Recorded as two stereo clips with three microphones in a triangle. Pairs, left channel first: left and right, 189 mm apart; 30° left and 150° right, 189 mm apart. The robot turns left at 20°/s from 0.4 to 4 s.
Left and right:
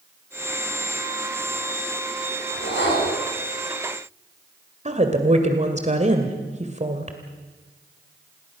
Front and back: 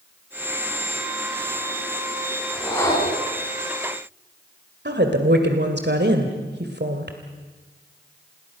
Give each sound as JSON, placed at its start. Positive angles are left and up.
{"t": 2.5, "sound": "a whoosh", "azimuth_deg": 110, "distance_m": 5.5}
{"t": 4.8, "sound": "a woman speaking", "azimuth_deg": -140, "distance_m": 2.0}